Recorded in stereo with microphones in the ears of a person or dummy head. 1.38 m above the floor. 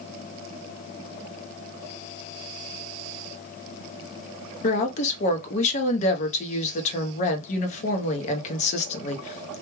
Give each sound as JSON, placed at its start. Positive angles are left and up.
{"t": 4.6, "sound": "a woman speaking", "side_deg": 45, "distance_m": 0.7}